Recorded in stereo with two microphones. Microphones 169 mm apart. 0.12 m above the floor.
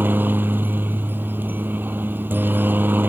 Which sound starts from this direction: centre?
A helicopter, at 0.0 s.